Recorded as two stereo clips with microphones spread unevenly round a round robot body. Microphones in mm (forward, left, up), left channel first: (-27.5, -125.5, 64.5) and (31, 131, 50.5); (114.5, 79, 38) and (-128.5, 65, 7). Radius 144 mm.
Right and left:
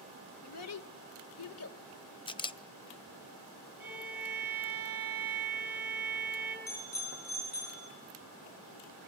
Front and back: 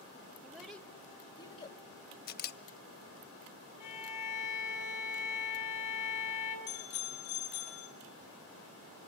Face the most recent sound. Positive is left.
turn(degrees=-45)